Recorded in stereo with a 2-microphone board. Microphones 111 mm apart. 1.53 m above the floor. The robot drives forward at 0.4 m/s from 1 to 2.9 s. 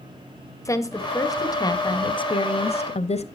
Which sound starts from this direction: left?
A woman speaking, at 0.7 s.